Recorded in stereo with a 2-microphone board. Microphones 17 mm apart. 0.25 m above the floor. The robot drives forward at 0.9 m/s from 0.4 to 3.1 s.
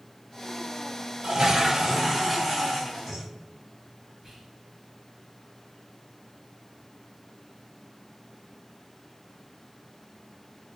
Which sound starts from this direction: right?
A toilet flushing, at 1.2 s.